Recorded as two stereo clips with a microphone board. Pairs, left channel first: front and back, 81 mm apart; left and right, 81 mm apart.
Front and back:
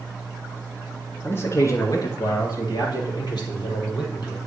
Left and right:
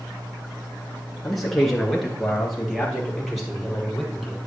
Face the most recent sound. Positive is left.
turn(degrees=-5)